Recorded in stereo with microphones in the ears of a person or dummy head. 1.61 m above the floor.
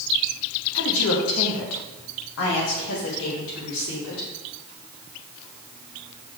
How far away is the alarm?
No alarm in this recording.